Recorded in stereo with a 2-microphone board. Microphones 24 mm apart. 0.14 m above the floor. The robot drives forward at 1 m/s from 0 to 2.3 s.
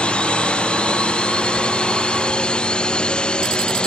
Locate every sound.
0.0 s a drone: 50° left (ahead or behind); by 3.9 s 40° left (ahead or behind)